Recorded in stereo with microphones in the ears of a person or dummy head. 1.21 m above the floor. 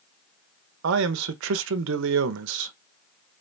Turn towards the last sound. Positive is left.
turn(degrees=-75)  # may be behind; listen again after turning